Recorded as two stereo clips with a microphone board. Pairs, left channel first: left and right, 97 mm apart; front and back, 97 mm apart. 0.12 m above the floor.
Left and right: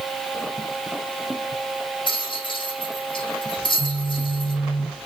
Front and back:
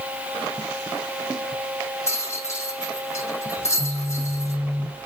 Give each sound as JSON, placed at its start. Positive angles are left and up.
{"t": 2.1, "sound": "a rattle", "azimuth_deg": 60, "distance_m": 5.5}
{"t": 3.6, "sound": "a phone buzzing", "azimuth_deg": 75, "distance_m": 5.0}